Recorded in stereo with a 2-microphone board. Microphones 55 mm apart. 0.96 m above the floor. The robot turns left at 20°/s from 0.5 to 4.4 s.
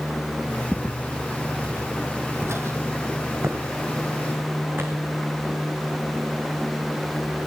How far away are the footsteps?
About 1.3 m.